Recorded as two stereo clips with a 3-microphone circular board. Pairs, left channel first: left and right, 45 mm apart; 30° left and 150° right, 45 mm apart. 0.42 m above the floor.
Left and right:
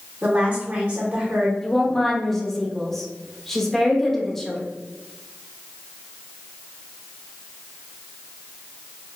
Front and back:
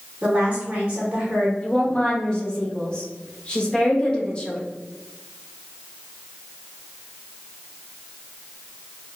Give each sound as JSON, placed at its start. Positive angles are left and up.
{"t": 0.2, "sound": "a woman speaking", "azimuth_deg": -110, "distance_m": 0.9}
{"t": 1.6, "sound": "a woman speaking", "azimuth_deg": 25, "distance_m": 0.7}